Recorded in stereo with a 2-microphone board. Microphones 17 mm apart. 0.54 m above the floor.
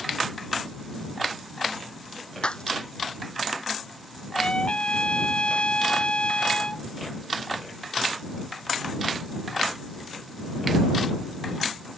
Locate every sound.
2.4 s breaking glass: 70° left (ahead or behind)
4.3 s a trumpet: 85° left